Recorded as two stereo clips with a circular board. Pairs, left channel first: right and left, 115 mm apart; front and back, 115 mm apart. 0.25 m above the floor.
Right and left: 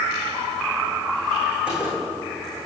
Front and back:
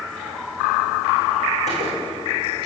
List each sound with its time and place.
1.7 s a gunshot: 10° left, 5 m